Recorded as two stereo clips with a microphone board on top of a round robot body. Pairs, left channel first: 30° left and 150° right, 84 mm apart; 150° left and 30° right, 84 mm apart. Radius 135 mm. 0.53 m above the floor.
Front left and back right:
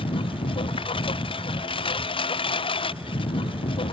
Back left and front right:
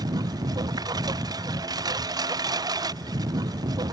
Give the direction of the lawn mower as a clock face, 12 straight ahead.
12 o'clock.